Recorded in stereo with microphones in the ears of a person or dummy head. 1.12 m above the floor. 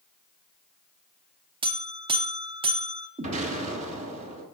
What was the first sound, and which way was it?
A buzzer, 30° right (ahead or behind).